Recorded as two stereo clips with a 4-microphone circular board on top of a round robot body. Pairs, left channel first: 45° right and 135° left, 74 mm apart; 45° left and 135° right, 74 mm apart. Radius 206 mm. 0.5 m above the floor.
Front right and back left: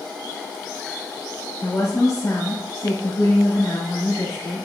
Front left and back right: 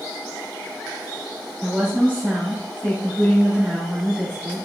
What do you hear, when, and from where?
1.6 s a woman speaking: 70° right, 1.7 m